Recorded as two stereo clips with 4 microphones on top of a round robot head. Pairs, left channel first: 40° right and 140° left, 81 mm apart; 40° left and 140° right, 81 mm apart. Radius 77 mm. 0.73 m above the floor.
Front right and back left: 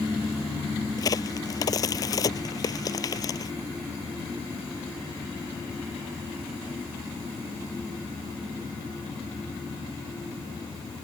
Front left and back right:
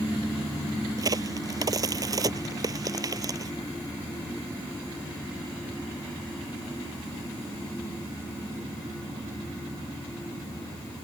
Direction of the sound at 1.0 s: 90° right.